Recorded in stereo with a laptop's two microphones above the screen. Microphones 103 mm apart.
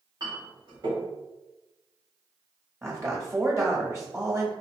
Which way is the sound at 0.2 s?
45° right (ahead or behind).